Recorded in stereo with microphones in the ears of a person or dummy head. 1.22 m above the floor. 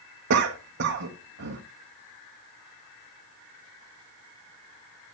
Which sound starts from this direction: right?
A cough, at 0.3 s.